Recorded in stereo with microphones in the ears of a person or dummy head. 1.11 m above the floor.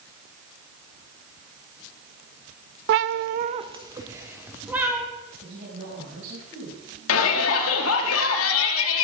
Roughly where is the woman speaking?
Right.